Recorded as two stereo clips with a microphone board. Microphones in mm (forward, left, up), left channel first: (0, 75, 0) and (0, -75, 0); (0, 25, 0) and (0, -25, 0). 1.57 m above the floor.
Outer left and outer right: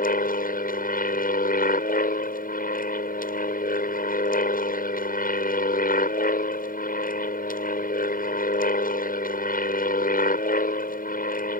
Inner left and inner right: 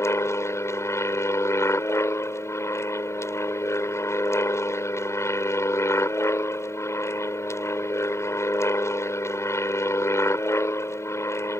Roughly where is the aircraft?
Left.